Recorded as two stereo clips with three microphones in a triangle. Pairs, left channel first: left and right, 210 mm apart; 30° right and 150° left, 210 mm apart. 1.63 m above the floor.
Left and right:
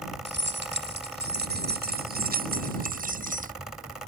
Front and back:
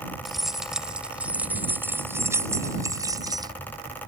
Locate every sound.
0.2 s keys jangling: 120° right; by 3.5 s 140° right